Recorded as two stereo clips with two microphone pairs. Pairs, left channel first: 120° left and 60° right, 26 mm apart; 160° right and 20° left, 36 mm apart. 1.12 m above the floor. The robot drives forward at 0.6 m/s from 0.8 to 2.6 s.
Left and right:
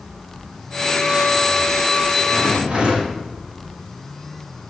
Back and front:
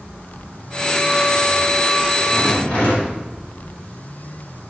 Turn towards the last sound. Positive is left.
turn(degrees=-100)